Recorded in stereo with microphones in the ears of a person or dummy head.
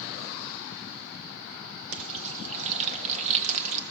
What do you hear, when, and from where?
1.9 s frying: 40° right (ahead or behind), 1.5 m